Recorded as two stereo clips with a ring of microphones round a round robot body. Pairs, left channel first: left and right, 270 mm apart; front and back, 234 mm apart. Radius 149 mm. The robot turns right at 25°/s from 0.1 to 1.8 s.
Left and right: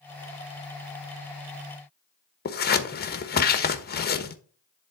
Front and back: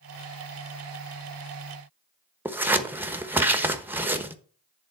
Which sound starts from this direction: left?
Scissors, at 2.5 s.